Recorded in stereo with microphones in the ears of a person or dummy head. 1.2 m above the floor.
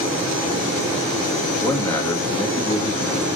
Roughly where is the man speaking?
Centre.